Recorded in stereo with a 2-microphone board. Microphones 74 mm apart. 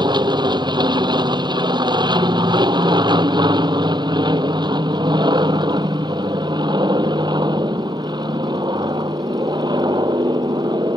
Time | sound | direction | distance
0.0 | an aircraft | 65° right (ahead or behind) | ?